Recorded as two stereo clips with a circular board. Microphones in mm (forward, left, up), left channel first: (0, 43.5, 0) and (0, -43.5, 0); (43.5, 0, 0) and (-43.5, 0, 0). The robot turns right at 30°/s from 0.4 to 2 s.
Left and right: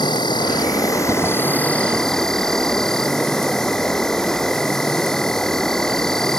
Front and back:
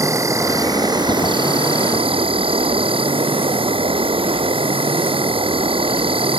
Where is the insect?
125° left; by 6.4 s 175° left.